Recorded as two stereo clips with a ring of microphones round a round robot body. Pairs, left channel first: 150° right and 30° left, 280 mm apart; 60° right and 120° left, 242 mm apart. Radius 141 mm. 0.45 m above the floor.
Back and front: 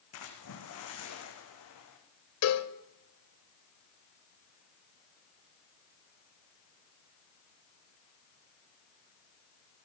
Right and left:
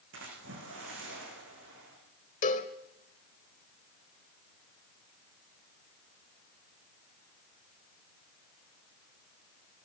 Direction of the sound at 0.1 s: 170° left.